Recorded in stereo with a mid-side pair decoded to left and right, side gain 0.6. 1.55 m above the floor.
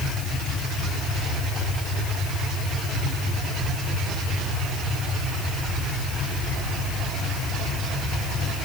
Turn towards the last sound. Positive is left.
No sound to turn to.